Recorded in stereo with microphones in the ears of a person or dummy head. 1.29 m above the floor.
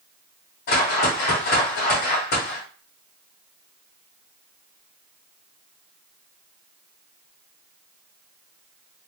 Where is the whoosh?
55° left (ahead or behind), 1.5 m.